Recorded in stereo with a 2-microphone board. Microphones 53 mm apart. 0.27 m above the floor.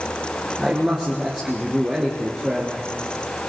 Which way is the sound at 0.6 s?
15° right (ahead or behind).